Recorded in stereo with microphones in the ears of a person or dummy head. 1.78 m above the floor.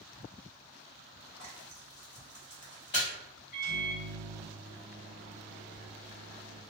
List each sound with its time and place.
1.4 s frying: 20° left (ahead or behind), 0.9 m
3.5 s a microwave: 50° left (ahead or behind), 1.3 m